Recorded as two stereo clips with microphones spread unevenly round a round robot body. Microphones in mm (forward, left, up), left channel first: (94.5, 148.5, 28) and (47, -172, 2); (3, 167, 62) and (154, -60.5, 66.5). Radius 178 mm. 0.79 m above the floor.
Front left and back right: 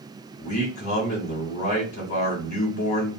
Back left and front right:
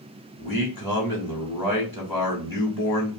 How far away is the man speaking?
About 1.5 m.